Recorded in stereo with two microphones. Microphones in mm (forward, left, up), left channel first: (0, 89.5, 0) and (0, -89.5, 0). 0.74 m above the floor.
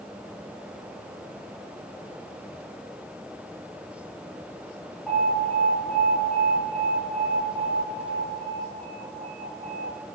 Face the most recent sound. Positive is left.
turn(degrees=-5)  # may be behind; listen again after turning